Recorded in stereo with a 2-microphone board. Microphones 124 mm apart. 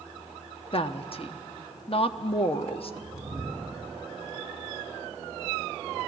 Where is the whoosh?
5° right (ahead or behind), 2.5 m.